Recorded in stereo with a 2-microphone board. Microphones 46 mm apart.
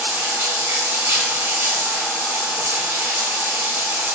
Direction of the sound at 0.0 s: 55° right (ahead or behind).